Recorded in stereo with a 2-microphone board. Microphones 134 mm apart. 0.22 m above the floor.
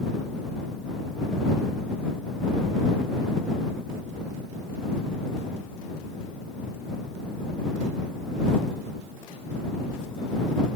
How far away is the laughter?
I don't hear laughter.